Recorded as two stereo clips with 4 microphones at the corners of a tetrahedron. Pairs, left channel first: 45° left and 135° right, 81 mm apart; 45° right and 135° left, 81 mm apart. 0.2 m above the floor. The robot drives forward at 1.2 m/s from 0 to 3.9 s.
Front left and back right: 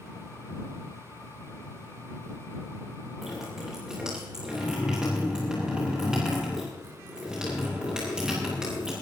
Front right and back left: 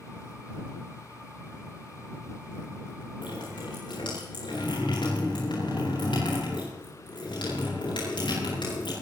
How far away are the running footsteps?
I don't hear running footsteps.